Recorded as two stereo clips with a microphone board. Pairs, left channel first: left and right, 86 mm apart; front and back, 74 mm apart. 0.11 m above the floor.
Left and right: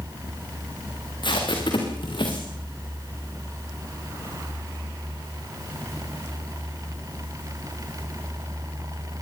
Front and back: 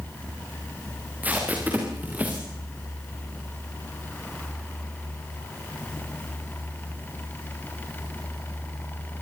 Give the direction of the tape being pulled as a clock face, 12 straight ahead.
8 o'clock.